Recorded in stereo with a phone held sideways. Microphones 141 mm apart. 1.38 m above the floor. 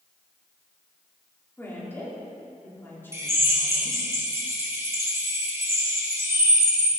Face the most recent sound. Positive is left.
turn(degrees=-20)  # may be behind; listen again after turning